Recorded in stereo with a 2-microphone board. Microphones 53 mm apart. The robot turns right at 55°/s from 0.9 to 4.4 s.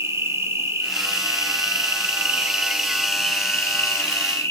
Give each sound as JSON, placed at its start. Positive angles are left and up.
{"t": 0.0, "sound": "an insect", "azimuth_deg": -115, "distance_m": 1.5}